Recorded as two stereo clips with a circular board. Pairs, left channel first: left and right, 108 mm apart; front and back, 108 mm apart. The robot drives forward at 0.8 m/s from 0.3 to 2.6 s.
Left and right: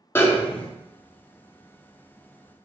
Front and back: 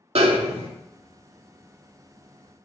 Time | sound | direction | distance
0.1 | a snare drum | 160° left | 0.5 m